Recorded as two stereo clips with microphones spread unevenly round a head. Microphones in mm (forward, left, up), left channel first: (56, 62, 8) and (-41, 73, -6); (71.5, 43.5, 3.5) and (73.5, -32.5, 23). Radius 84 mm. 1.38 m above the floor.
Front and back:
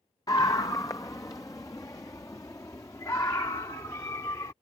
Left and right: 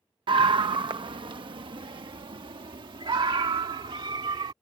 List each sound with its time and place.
0.3 s a scream: 80° right